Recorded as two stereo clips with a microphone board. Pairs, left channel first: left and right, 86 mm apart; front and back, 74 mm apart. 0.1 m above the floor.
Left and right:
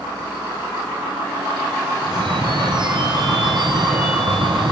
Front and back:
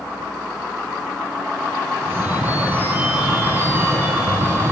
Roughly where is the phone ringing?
Behind right.